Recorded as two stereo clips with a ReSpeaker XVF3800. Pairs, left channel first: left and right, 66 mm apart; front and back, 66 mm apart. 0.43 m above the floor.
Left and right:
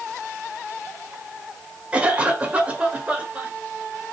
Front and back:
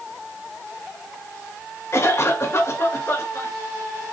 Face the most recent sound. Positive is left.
turn(degrees=-25)